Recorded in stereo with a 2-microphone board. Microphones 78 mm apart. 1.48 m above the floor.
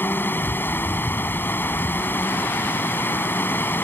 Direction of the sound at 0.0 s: 25° left (ahead or behind).